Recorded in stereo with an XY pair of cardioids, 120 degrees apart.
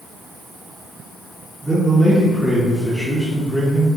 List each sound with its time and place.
1.6 s a man speaking: straight ahead, 1.8 m